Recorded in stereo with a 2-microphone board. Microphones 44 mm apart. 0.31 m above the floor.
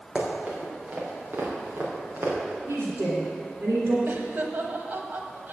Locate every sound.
0.1 s running footsteps: 20° right (ahead or behind), 4 m; by 2.4 s 60° right (ahead or behind), 4.5 m
2.7 s a woman speaking: 70° right (ahead or behind), 3 m
4.1 s laughter: 50° right (ahead or behind), 1.4 m